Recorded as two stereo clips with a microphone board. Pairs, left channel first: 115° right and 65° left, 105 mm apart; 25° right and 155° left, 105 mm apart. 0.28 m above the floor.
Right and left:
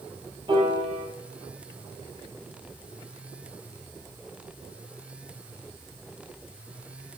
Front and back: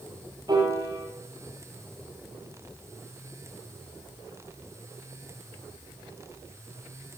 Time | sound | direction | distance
0.5 | a piano | 110° left | 6.5 m